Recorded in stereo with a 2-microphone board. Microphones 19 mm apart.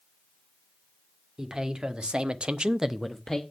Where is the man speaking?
45° right (ahead or behind), 2 m; by 3.4 s 20° left (ahead or behind), 1.0 m.